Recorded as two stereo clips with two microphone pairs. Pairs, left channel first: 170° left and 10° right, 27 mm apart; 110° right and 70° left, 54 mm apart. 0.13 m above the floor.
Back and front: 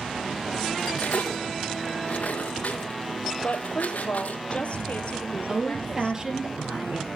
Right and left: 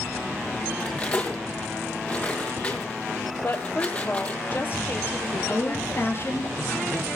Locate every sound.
0.8 s cutlery clinking: straight behind, 2.5 m
3.4 s a woman speaking: 155° right, 3 m
5.5 s a woman speaking: 75° right, 3 m